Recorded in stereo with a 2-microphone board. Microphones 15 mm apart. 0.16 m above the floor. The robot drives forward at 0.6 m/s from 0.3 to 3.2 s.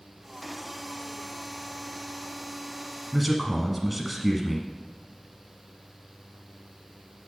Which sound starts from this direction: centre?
A man speaking, at 3.1 s.